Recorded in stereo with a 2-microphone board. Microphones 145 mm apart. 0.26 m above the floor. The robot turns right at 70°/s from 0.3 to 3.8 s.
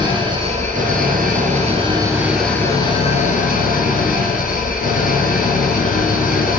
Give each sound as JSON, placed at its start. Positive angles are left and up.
{"t": 0.0, "sound": "an engine running", "azimuth_deg": -150, "distance_m": 2.5}